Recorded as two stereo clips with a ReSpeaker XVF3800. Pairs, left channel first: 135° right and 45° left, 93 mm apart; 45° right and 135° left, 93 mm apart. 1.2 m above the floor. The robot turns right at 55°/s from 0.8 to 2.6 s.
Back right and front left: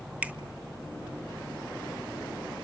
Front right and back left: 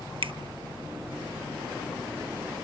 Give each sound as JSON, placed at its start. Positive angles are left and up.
{"t": 0.2, "sound": "a finger snap", "azimuth_deg": 120, "distance_m": 0.9}